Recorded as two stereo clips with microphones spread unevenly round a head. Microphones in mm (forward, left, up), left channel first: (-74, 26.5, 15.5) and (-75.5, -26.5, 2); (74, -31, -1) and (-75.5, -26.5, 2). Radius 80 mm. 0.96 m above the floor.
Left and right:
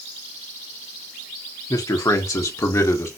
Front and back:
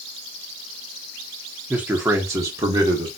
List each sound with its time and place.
1.7 s a man speaking: 95° left, 1.7 m; by 3.1 s 110° left, 2.5 m